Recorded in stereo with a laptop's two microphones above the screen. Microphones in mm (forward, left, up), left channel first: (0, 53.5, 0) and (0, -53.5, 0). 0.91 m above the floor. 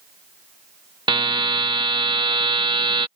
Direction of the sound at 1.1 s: 45° right (ahead or behind).